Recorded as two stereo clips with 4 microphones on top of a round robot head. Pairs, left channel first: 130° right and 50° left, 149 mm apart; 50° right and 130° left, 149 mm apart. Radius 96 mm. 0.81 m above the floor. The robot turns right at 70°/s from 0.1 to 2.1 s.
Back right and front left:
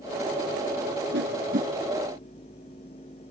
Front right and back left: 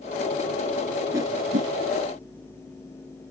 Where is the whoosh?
55° left; by 1.7 s 95° left.